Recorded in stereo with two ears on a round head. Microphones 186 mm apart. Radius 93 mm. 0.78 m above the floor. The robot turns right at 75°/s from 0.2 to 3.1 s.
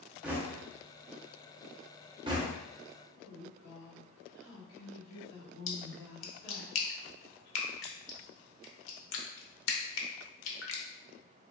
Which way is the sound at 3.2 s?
55° left (ahead or behind).